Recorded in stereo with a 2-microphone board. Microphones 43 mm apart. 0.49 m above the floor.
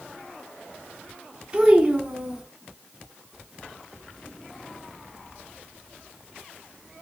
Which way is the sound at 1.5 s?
20° right (ahead or behind).